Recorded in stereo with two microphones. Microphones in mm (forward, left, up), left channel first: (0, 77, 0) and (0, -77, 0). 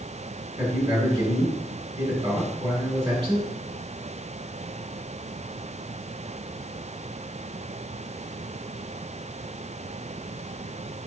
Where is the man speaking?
35° right (ahead or behind), 1.8 m.